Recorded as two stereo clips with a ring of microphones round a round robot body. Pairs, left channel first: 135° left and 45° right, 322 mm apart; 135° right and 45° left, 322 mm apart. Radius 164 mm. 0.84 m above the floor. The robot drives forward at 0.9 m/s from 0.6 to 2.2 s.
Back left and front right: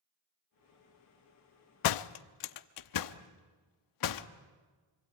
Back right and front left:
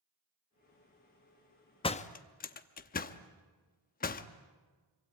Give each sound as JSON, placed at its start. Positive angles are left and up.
{"t": 1.8, "sound": "a door slam", "azimuth_deg": 150, "distance_m": 0.6}